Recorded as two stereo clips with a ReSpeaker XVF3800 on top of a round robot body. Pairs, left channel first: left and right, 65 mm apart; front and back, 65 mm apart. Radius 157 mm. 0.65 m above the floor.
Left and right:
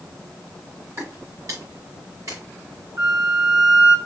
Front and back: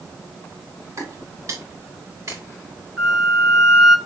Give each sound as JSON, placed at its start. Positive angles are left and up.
{"t": 1.0, "sound": "footsteps", "azimuth_deg": -140, "distance_m": 4.5}
{"t": 3.0, "sound": "a flute", "azimuth_deg": -95, "distance_m": 2.5}